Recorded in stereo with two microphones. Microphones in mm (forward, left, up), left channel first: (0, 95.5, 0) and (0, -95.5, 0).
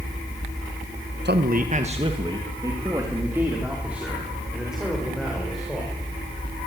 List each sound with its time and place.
1.2 s a man speaking: 65° right (ahead or behind), 1.3 m; by 5.9 s centre (ahead or behind), 7 m